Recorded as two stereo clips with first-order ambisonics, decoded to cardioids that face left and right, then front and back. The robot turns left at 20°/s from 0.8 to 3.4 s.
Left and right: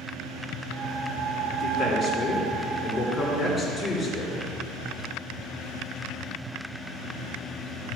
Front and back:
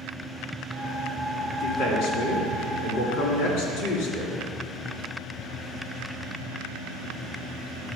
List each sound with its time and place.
1.6 s a man speaking: 50° left, 3 m; by 4.3 s 15° left, 3 m